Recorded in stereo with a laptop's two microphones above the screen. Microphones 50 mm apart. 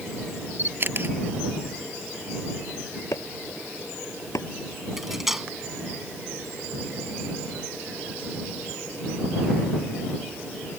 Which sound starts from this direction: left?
Chopping, at 3.1 s.